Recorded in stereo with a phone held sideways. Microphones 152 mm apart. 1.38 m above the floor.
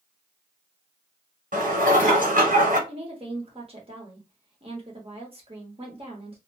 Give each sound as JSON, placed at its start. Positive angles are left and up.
{"t": 1.5, "sound": "dishes clattering", "side_deg": -65, "distance_m": 1.4}
{"t": 2.9, "sound": "a woman speaking", "side_deg": -40, "distance_m": 1.2}